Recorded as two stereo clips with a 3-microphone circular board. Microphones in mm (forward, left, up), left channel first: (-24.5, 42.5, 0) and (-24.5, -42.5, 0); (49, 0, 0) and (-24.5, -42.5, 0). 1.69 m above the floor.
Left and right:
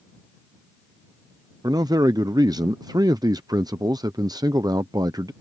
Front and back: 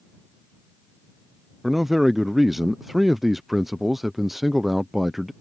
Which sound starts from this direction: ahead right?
A man speaking, at 1.6 s.